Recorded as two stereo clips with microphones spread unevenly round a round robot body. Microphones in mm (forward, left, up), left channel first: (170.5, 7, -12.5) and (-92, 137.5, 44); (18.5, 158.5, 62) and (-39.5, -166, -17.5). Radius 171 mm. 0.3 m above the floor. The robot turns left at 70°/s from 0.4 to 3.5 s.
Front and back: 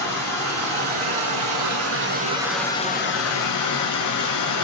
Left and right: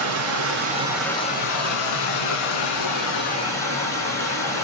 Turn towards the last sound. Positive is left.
turn(degrees=-5)